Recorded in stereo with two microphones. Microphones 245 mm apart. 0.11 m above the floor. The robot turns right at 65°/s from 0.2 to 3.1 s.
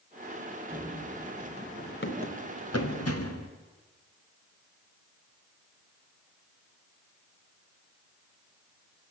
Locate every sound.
0.7 s running footsteps: 20° right (ahead or behind), 4 m; by 3.5 s 80° left, 3 m